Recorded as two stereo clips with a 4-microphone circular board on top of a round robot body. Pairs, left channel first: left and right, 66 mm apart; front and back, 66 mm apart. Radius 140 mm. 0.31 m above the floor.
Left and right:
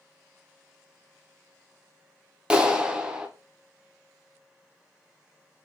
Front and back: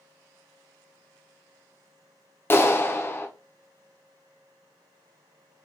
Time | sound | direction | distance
2.5 | a clap | 25° right | 0.8 m